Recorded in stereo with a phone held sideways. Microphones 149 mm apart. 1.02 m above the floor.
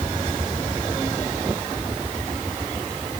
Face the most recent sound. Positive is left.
No sound to turn to.